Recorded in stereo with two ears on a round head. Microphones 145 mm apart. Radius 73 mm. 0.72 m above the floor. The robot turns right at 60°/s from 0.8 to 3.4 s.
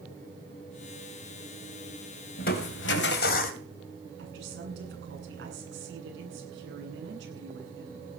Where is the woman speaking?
80° right, 10 m.